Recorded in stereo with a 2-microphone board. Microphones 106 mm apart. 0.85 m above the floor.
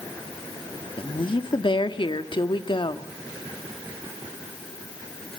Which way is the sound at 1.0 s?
50° left (ahead or behind).